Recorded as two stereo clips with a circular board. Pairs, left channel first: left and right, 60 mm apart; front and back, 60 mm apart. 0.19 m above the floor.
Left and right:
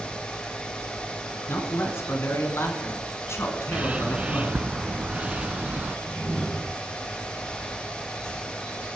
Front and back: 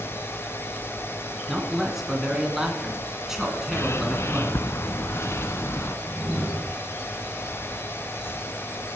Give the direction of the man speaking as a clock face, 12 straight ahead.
9 o'clock.